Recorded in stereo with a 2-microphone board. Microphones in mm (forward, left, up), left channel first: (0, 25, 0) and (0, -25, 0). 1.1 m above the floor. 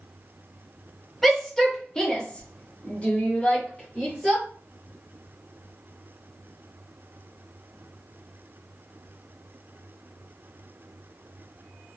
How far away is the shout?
About 1.1 m.